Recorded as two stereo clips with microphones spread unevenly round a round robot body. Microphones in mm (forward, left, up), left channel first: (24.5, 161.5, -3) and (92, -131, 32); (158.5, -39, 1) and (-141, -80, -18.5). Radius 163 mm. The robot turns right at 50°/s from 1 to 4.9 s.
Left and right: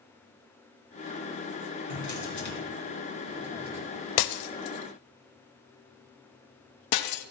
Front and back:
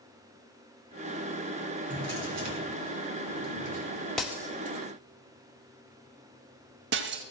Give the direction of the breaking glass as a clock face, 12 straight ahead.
9 o'clock.